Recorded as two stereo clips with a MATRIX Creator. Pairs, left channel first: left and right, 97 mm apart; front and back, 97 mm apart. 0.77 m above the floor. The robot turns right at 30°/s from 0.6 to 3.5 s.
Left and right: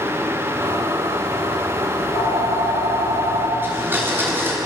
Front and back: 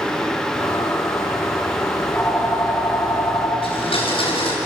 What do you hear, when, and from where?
1.9 s a phone ringing: 50° left, 8 m; by 3.5 s 95° left, 8 m
3.6 s a blender: 20° right, 6.5 m